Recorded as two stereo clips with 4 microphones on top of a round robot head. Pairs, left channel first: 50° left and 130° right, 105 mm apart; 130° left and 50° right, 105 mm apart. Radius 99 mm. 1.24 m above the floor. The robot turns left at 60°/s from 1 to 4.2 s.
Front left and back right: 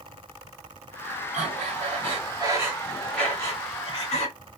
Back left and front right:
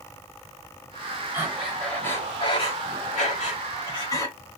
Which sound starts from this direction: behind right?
Breathing, at 1.3 s.